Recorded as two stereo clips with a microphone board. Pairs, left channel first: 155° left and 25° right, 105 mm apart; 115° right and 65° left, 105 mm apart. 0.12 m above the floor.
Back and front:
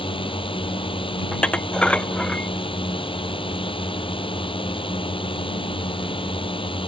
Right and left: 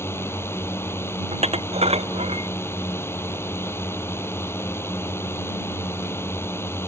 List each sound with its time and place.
0.0 s a drone: 175° right
1.3 s dishes clattering: 80° left